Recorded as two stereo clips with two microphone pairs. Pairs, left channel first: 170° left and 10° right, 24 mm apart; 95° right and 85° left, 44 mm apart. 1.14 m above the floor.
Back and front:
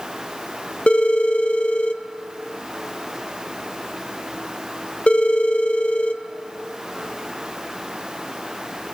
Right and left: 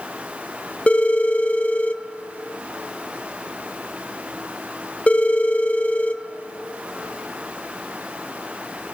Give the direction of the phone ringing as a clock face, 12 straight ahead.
5 o'clock.